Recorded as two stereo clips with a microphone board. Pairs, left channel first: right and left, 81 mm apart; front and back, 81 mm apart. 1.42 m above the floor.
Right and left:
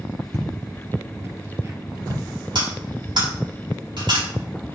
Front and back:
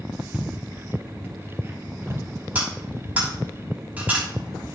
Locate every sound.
0.3 s footsteps: 105° left, 1.5 m; by 2.3 s 135° left, 2.5 m
2.5 s cutlery clinking: 110° left, 6 m